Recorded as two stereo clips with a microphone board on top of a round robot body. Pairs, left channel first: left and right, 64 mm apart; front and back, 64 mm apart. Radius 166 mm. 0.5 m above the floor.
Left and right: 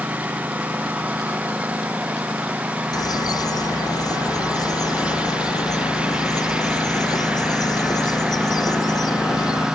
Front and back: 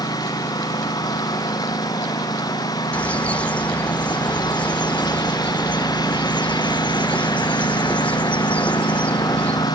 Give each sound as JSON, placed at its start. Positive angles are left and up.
{"t": 0.0, "sound": "a lawn mower", "azimuth_deg": -20}
{"t": 2.9, "sound": "a bird", "azimuth_deg": 70}